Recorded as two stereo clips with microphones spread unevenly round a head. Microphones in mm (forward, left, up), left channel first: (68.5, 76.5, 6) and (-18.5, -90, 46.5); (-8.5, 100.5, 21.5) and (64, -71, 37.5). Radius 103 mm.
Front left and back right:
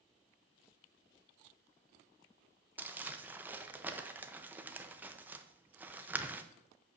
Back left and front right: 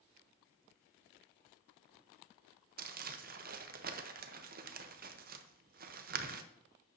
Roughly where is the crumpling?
Ahead right.